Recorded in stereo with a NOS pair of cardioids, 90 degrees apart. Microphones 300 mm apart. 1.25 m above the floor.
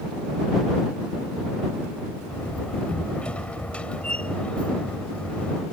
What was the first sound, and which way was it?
A door slam, 5° left.